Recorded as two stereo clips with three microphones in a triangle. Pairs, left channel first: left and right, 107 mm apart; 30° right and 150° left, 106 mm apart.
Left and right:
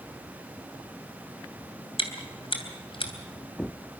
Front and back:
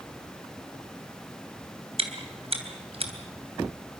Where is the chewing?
125° left, 3 m.